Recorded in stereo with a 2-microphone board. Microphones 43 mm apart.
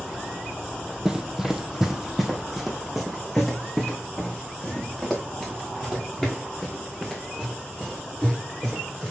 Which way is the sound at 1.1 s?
15° right (ahead or behind).